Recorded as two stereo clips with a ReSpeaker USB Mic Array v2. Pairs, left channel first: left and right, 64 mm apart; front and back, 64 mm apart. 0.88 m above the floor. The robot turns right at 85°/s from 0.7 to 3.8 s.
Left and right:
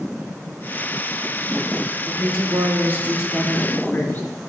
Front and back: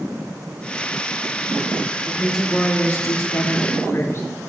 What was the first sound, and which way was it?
A woman speaking, 110° right.